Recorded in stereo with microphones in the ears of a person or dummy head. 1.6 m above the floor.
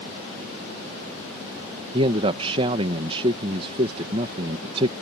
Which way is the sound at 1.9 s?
35° right (ahead or behind).